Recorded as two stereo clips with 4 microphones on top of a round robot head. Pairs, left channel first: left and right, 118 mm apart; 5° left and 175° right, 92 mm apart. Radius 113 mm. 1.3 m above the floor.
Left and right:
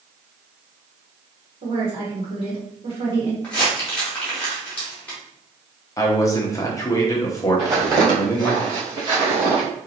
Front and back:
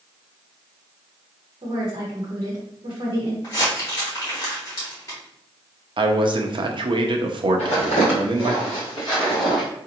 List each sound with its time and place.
1.6 s a woman speaking: 130° right, 1.1 m
3.4 s crumpling: 25° left, 0.9 m
6.0 s a man speaking: 155° left, 0.8 m
7.6 s footsteps: 25° right, 2.0 m; by 9.6 s 80° right, 1.5 m